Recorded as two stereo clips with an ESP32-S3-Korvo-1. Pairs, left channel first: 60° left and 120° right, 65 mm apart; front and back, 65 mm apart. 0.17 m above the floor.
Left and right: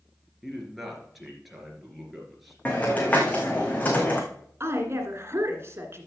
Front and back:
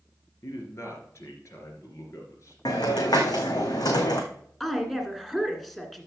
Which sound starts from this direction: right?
A woman speaking, at 4.6 s.